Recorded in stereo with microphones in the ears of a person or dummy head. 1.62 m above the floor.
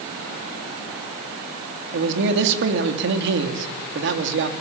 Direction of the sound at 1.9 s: 65° right (ahead or behind).